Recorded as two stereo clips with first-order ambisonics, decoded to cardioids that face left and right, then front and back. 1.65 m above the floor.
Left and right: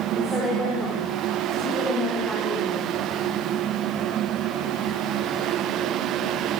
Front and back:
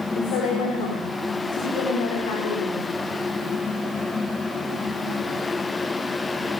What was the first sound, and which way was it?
A woman speaking, 5° left.